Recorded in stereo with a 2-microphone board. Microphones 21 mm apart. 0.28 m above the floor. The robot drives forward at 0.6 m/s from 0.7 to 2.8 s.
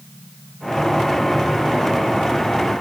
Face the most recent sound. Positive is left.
No sound to turn to.